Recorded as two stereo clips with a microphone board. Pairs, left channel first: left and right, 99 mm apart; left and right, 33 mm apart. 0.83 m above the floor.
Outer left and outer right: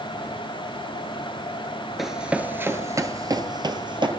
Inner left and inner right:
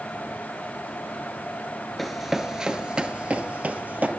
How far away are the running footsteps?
About 0.8 m.